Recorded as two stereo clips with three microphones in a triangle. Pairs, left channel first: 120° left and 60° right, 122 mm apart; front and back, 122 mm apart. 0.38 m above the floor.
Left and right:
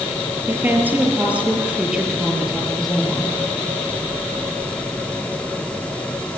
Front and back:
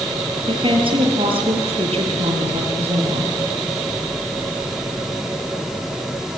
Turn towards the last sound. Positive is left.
turn(degrees=-155)